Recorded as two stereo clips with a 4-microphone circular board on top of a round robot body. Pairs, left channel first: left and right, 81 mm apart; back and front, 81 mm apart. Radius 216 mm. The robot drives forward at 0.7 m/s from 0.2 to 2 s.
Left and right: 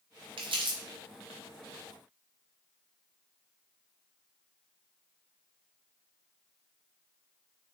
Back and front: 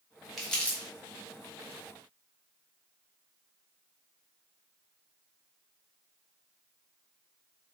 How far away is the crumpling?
About 0.8 m.